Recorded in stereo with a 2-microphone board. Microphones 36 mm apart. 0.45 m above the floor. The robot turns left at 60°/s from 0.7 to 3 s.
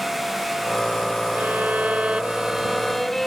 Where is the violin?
90° right; by 3.3 s 170° left.